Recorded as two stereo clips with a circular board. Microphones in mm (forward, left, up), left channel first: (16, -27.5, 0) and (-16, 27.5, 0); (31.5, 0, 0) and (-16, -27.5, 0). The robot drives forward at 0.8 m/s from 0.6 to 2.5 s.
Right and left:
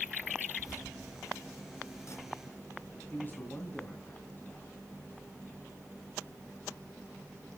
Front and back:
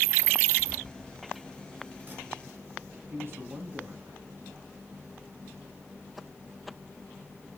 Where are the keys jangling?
75° right, 3 m; by 3.0 s 105° right, 3 m.